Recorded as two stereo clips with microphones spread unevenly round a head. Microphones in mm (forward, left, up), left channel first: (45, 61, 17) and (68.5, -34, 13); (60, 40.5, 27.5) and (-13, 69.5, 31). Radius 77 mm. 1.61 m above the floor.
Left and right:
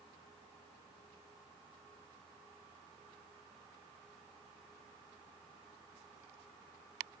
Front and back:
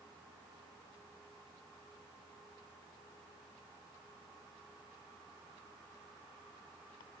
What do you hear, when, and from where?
Only background noise.